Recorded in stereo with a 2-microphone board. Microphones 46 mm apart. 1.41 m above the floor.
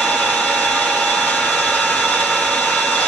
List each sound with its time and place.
0.0 s an engine running: 30° left (ahead or behind), 1.2 m